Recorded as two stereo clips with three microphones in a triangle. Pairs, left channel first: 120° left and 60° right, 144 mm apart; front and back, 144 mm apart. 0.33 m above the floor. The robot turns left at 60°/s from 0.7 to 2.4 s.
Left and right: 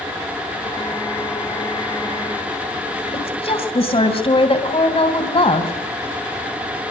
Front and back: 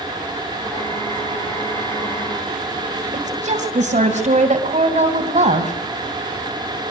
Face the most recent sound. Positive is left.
turn(degrees=160)